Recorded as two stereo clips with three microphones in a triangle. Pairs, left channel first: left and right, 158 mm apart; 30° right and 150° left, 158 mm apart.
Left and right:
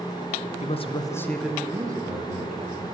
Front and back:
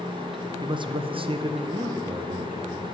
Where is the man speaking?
100° left, 0.7 m; by 2.8 s 130° right, 1.3 m.